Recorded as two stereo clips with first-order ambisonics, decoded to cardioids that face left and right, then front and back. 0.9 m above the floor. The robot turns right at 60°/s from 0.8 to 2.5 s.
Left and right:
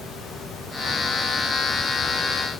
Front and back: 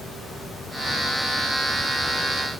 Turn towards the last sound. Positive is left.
No sound to turn to.